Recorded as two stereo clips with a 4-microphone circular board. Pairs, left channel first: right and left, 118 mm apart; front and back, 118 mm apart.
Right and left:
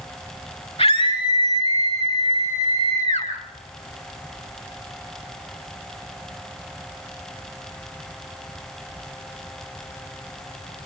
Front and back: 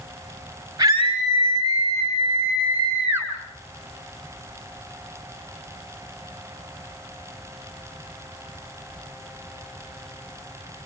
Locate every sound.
0.8 s a scream: 120° right, 9 m; by 3.3 s 110° right, 8 m